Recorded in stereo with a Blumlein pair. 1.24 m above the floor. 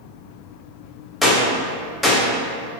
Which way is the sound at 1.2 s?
10° left.